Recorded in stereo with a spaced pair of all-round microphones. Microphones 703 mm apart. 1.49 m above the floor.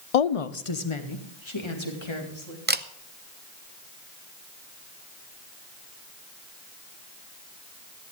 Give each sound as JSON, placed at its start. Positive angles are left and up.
{"t": 0.1, "sound": "a woman speaking", "side_deg": 60, "distance_m": 0.5}
{"t": 2.7, "sound": "a camera shutter", "side_deg": -15, "distance_m": 0.5}